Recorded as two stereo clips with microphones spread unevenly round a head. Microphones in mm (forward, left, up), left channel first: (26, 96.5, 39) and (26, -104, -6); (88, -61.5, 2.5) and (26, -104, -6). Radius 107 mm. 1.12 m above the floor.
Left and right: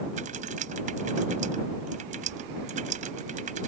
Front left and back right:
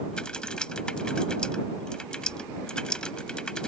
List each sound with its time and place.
0.1 s typing on a keyboard: 35° right